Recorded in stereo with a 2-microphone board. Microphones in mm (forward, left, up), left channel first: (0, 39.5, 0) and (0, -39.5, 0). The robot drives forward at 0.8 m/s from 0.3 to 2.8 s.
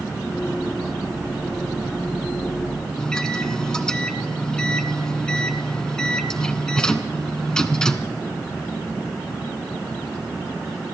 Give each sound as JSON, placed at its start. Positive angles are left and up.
{"t": 3.0, "sound": "a microwave", "side_deg": 10, "distance_m": 0.9}